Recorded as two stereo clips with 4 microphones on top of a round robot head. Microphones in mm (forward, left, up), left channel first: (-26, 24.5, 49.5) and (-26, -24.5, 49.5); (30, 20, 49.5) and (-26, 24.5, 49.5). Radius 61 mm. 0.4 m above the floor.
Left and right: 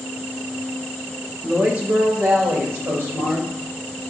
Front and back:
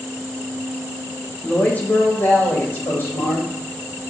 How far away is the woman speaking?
About 1.1 m.